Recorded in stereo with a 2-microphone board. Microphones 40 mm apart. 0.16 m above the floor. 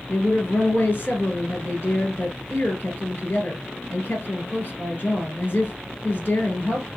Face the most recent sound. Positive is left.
turn(degrees=40)  # may be behind; listen again after turning